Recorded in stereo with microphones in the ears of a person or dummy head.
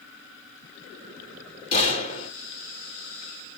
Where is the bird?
I don't hear a bird.